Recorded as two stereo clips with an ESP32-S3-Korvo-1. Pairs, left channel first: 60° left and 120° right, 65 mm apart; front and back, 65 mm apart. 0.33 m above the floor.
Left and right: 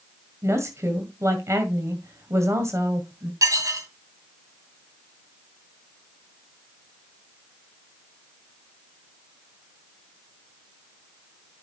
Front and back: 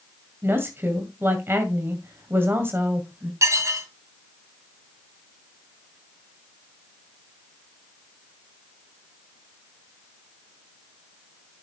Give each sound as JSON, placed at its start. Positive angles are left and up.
{"t": 0.4, "sound": "a woman speaking", "azimuth_deg": -140, "distance_m": 2.0}
{"t": 3.4, "sound": "dishes clattering", "azimuth_deg": -145, "distance_m": 1.6}